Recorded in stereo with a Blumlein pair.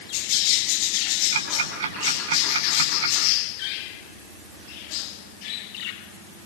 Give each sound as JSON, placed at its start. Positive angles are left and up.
{"t": 1.3, "sound": "ticking", "azimuth_deg": -60, "distance_m": 8.0}